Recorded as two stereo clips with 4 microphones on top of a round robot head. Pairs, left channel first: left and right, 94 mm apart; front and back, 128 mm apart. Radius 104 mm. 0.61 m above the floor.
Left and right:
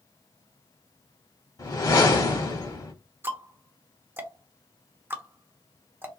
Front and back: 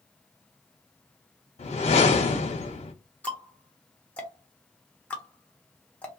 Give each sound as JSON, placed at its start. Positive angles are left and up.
{"t": 1.6, "sound": "a whoosh", "azimuth_deg": 40, "distance_m": 0.9}
{"t": 3.2, "sound": "ticking", "azimuth_deg": -65, "distance_m": 1.0}